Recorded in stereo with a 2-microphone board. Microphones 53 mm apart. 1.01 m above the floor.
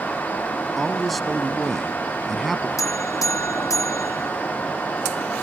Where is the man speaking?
Centre (ahead or behind).